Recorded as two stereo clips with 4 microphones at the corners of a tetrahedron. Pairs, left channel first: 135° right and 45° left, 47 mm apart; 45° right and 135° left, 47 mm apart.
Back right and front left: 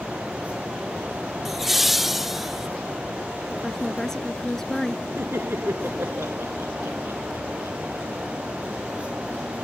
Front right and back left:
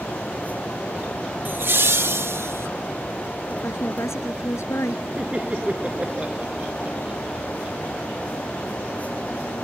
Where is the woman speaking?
55° right.